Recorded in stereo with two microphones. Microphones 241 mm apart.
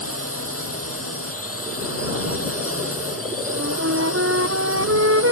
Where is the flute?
70° right (ahead or behind).